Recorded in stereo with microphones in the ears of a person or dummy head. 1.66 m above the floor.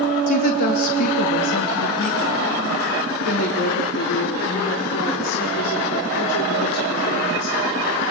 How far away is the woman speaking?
About 3 m.